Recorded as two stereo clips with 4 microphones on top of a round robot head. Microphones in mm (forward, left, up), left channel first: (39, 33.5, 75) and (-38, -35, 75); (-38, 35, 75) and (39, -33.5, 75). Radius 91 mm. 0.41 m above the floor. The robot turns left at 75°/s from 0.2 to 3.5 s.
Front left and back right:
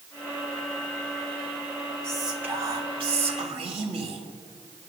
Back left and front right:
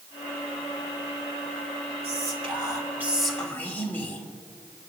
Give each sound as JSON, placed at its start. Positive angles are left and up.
{"t": 2.0, "sound": "whispering", "azimuth_deg": -40, "distance_m": 3.0}